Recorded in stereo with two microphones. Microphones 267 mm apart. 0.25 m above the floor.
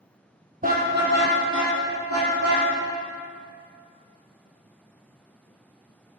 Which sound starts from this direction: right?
A car horn, at 0.6 s.